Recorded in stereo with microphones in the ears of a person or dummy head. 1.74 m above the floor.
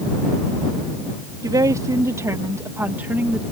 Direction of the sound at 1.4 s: 15° right (ahead or behind).